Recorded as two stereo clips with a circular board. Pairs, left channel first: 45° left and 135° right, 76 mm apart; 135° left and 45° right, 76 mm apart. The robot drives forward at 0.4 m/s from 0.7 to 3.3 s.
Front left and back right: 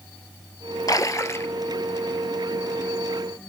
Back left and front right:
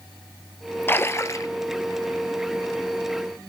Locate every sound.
0.9 s a splash: 75° left, 0.7 m; by 1.5 s 100° left, 0.6 m